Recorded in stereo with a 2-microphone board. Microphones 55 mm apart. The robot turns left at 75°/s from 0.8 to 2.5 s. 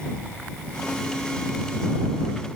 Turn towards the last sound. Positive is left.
No sound to turn to.